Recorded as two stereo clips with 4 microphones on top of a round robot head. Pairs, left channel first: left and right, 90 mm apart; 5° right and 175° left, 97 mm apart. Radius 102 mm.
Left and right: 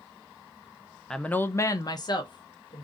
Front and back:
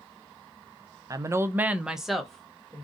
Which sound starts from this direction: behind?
A woman speaking, at 1.1 s.